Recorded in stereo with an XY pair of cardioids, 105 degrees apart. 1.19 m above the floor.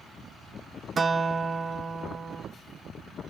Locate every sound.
1.0 s a guitar: 30° right, 1.1 m